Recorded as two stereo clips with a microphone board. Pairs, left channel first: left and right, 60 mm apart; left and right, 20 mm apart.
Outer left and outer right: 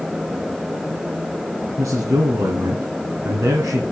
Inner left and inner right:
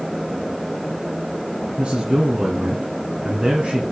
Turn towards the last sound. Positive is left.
turn(degrees=-70)  # may be behind; listen again after turning